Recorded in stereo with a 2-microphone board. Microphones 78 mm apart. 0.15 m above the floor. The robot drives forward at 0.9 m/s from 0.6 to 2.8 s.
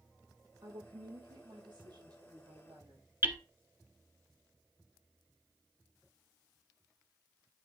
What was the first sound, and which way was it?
A woman speaking, 75° right (ahead or behind).